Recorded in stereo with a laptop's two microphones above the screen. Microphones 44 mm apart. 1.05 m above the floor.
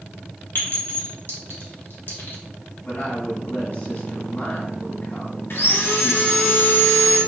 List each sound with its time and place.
0.6 s a clink: 55° left (ahead or behind), 1.2 m
2.9 s a woman speaking: 45° left (ahead or behind), 1.5 m
5.5 s sawing: 60° left (ahead or behind), 0.8 m